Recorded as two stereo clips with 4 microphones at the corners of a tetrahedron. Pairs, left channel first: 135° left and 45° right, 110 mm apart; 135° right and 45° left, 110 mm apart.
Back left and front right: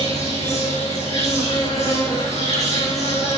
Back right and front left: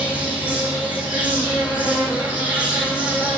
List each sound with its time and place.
0.0 s an insect: 125° left, 8 m